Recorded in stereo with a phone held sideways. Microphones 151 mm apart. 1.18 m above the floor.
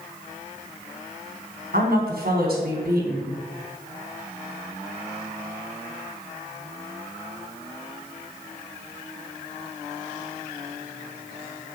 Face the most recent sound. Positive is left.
turn(degrees=-75)  # may be behind; listen again after turning